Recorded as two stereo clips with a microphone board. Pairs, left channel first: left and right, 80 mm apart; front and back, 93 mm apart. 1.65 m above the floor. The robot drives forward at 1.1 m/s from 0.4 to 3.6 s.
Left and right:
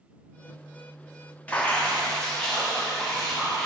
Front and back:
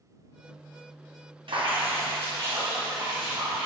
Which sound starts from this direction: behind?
Dripping, at 1.5 s.